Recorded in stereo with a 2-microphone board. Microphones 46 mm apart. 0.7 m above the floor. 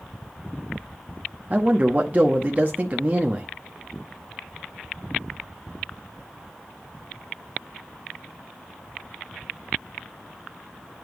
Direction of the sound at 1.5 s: 35° right (ahead or behind).